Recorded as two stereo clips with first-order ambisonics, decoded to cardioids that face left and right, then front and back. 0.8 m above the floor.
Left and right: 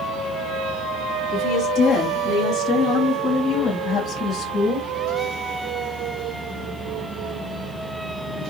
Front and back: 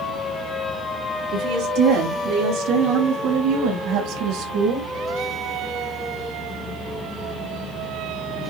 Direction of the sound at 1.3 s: 155° left.